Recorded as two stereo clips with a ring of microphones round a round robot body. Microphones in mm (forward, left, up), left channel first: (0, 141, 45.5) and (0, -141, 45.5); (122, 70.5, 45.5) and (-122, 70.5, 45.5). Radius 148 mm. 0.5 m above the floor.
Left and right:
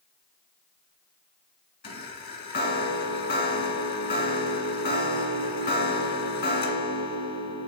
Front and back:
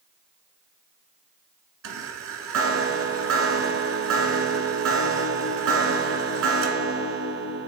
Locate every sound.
1.8 s a chime: 150° left, 1.4 m